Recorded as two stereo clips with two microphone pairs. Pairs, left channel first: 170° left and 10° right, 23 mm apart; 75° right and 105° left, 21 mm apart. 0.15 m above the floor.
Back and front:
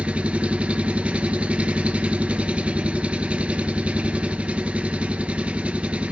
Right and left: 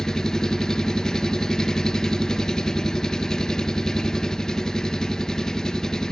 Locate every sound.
0.0 s an engine running: 20° right, 0.7 m